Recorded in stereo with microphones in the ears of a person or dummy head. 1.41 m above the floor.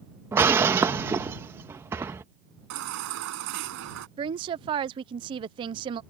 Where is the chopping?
I don't hear chopping.